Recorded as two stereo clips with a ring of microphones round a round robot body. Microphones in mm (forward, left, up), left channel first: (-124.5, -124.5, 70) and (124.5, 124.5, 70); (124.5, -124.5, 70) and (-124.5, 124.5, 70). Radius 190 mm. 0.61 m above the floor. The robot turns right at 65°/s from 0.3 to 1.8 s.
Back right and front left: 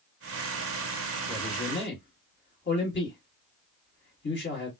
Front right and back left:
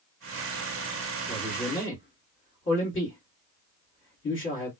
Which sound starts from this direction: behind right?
A man speaking, at 1.3 s.